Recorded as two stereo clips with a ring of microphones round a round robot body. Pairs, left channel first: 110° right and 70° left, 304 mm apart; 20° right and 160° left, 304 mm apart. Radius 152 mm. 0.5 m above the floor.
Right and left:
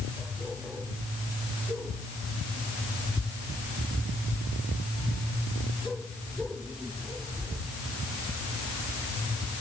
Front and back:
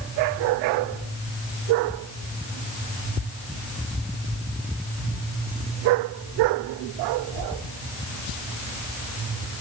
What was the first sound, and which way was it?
Only background noise.